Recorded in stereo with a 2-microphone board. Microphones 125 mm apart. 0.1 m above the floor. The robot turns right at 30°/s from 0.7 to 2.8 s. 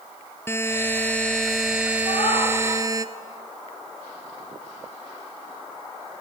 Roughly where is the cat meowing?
Left.